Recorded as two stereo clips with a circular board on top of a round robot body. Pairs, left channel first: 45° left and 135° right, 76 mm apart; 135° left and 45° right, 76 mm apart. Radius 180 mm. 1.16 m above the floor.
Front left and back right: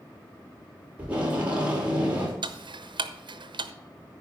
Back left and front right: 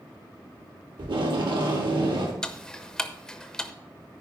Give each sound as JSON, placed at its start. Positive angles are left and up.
{"t": 1.0, "sound": "tape being pulled", "azimuth_deg": -60, "distance_m": 2.5}
{"t": 2.4, "sound": "ticking", "azimuth_deg": -140, "distance_m": 0.8}